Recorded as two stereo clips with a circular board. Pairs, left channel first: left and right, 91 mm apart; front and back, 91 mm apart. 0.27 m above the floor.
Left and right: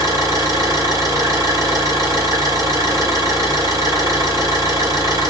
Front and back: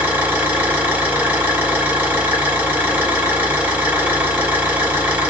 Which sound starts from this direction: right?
An engine running, at 0.0 s.